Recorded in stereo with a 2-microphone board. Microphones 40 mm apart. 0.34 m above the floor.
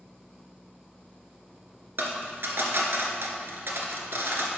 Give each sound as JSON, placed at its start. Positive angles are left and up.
{"t": 2.0, "sound": "a dropped coin", "side_deg": -65, "distance_m": 1.3}